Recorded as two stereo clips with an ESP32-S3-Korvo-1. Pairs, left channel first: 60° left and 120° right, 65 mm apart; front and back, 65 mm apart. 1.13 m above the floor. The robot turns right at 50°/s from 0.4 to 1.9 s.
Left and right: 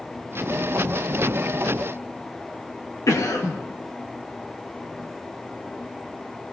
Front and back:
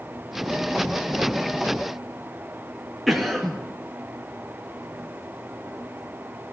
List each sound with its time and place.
3.1 s a cough: 90° left, 1.5 m